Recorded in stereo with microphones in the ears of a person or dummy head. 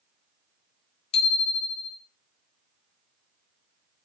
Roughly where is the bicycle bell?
Left.